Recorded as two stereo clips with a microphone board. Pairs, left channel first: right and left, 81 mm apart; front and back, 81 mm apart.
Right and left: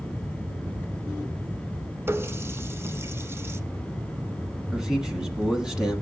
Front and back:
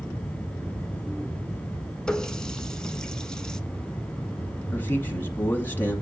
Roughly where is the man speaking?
Ahead.